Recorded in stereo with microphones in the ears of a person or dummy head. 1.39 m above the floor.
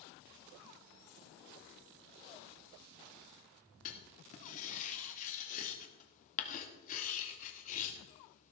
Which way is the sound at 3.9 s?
40° left (ahead or behind).